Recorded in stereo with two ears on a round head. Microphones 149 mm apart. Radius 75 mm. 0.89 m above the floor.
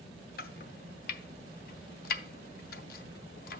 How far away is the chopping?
About 0.6 m.